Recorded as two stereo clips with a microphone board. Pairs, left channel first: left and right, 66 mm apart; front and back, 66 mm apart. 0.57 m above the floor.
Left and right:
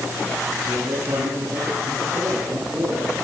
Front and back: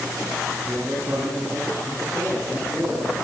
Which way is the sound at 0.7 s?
125° right.